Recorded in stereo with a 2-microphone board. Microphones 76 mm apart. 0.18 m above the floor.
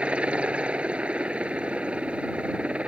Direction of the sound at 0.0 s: 15° right (ahead or behind).